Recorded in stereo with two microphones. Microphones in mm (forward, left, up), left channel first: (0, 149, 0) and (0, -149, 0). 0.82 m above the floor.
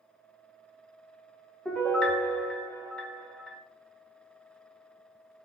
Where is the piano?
5° left (ahead or behind), 0.5 m.